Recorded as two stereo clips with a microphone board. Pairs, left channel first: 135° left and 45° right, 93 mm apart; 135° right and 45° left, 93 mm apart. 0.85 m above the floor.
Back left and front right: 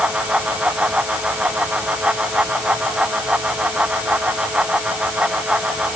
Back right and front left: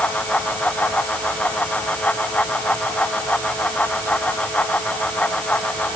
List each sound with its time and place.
Only background noise.